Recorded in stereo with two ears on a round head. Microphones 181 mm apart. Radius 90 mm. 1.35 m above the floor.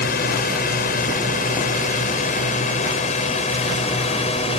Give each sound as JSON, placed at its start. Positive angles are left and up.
{"t": 0.0, "sound": "a drone", "side_deg": 50}